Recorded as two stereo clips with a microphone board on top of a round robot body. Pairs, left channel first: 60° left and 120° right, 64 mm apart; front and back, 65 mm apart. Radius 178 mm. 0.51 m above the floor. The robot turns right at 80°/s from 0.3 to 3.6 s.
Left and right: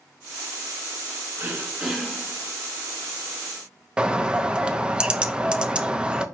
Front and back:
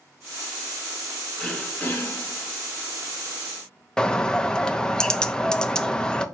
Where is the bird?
65° right, 0.8 m.